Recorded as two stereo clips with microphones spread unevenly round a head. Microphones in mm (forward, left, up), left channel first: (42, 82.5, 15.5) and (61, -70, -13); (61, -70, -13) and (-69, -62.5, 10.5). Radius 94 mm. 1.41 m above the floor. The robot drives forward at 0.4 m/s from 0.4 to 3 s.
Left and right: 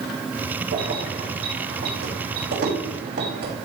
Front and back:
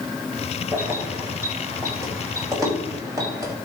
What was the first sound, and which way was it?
Keys jangling, 110° right.